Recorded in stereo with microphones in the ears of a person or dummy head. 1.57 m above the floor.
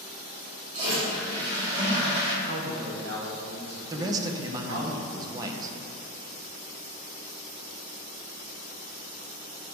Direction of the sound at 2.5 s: 70° right (ahead or behind).